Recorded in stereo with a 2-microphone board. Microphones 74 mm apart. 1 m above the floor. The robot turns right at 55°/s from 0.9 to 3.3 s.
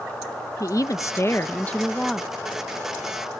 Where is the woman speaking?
110° left; by 2.3 s 175° right.